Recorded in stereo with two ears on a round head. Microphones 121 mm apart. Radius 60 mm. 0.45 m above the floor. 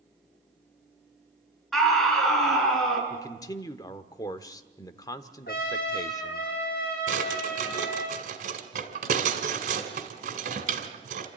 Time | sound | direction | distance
1.7 | a scream | centre (ahead or behind) | 6.5 m
3.1 | a man speaking | 25° left (ahead or behind) | 0.9 m
5.5 | a trumpet | 75° left (ahead or behind) | 5 m
7.1 | a drawer | 65° right (ahead or behind) | 2 m